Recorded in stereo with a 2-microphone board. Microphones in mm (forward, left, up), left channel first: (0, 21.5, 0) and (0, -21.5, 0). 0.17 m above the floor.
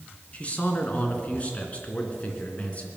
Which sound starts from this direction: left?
A man speaking, at 0.3 s.